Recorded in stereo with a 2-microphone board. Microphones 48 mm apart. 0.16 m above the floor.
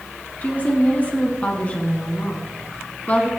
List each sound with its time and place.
0.4 s a woman speaking: 30° left (ahead or behind), 1.3 m